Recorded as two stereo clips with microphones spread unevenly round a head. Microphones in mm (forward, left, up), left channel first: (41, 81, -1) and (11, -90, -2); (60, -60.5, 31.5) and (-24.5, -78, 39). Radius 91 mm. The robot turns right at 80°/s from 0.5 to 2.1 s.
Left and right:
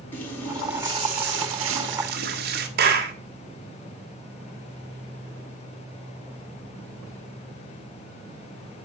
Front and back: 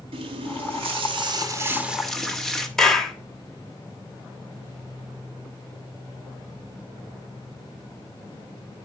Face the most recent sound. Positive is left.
turn(degrees=-70)